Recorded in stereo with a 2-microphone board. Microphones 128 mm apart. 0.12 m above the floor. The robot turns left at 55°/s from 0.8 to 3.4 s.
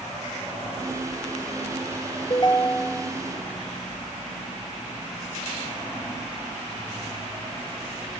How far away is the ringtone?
About 1.5 m.